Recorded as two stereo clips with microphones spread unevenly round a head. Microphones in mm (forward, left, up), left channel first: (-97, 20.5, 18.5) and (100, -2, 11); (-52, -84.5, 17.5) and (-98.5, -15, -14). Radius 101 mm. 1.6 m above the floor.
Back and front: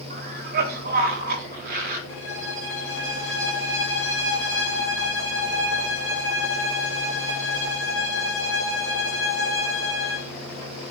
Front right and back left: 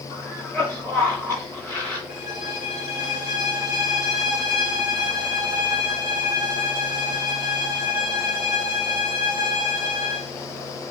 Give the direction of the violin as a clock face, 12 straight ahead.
7 o'clock.